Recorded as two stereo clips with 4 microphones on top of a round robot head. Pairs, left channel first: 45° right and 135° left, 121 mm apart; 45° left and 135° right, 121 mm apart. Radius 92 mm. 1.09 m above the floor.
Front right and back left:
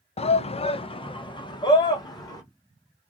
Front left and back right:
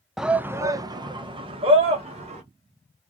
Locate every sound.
0.2 s a shout: 50° right, 0.6 m; by 2.4 s 100° right, 1.5 m